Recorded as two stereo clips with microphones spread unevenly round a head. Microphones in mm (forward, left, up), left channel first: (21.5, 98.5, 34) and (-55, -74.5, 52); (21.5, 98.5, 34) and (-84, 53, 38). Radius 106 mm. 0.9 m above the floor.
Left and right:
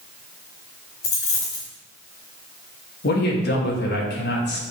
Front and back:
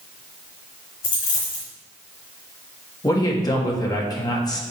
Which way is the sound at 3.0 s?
75° left.